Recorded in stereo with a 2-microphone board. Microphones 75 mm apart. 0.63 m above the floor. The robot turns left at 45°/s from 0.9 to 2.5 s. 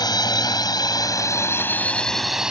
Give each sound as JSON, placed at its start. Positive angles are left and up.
{"t": 0.0, "sound": "a drone", "side_deg": 65}